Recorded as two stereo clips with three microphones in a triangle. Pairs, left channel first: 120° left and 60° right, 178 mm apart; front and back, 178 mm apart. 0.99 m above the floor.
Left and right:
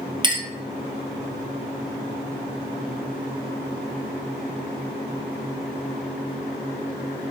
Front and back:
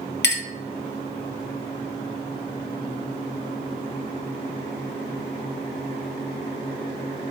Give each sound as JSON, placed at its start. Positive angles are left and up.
{"t": 0.2, "sound": "a clink", "azimuth_deg": 0, "distance_m": 0.5}